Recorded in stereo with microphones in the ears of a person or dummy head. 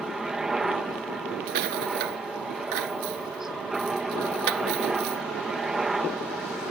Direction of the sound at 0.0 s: Centre (ahead or behind).